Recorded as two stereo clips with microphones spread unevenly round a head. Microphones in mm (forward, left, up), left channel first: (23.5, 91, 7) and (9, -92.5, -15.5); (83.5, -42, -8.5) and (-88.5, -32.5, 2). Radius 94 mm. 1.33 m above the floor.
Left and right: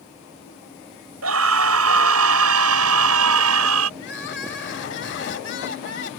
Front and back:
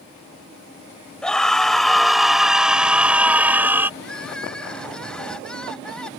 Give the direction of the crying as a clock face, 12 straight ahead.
9 o'clock.